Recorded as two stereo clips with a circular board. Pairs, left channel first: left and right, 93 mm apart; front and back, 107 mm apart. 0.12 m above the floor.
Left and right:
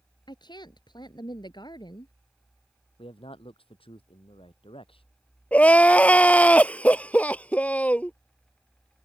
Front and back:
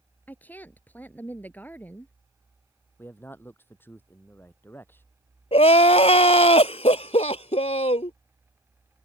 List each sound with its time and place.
0.3 s a woman speaking: 70° left
3.0 s a man speaking: 70° left
5.5 s crying: 15° left